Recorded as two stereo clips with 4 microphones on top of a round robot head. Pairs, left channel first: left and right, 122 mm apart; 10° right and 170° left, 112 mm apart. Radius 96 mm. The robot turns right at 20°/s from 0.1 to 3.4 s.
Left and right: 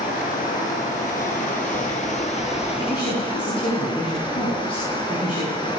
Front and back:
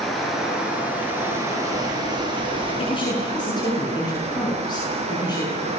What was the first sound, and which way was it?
Running water, 75° left.